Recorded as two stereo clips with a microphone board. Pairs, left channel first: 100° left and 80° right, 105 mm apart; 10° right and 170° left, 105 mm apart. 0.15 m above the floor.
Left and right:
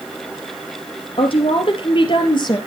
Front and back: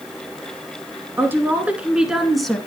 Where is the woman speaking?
105° left, 3 m; by 2.6 s 75° left, 2.5 m.